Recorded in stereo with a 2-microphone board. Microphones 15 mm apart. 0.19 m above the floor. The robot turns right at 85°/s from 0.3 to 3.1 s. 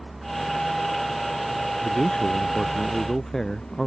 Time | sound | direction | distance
0.0 | a vehicle | 175° right | ?
1.8 | a man speaking | 50° left | ?